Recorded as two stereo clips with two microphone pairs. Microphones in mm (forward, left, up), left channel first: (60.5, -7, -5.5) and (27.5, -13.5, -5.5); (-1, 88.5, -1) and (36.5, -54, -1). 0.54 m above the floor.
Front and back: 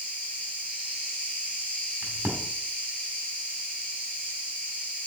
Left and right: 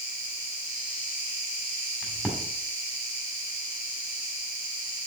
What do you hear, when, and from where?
0.0 s an insect: 55° left, 4.5 m
2.0 s a crack: 170° right, 2 m